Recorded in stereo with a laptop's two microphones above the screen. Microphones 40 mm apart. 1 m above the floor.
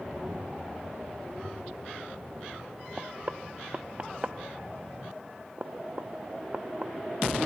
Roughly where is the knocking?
Right.